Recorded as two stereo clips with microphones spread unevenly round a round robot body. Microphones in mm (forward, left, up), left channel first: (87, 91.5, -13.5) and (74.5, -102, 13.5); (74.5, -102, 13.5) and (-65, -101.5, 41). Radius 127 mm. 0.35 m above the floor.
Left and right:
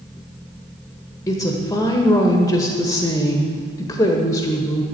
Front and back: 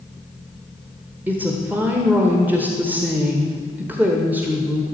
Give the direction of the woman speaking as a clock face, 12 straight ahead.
9 o'clock.